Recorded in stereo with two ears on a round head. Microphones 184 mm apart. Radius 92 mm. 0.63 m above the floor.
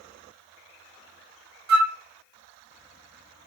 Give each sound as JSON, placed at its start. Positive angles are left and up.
{"t": 1.7, "sound": "a flute", "side_deg": -50, "distance_m": 0.6}